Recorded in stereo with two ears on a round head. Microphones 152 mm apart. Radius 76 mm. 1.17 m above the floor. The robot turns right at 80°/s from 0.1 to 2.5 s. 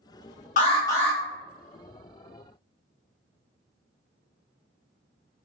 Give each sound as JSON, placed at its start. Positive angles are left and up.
{"t": 0.6, "sound": "an alarm", "azimuth_deg": 130, "distance_m": 0.9}